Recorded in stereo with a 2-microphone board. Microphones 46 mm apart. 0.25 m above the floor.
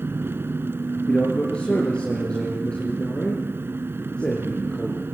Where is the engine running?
55° right (ahead or behind), 0.8 m.